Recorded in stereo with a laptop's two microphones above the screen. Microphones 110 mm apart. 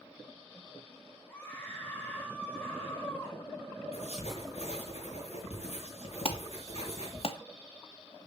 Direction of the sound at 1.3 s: 15° left (ahead or behind).